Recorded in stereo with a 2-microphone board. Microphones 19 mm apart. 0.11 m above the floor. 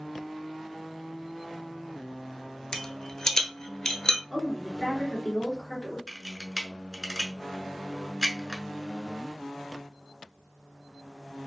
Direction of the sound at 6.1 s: 20° right (ahead or behind).